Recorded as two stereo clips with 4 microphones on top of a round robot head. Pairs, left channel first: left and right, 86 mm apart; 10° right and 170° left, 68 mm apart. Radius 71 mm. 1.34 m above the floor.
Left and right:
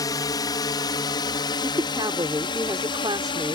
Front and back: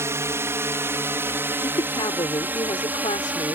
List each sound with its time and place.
0.0 s a drone: 125° left; by 3.5 s 105° left
1.6 s a woman speaking: 35° right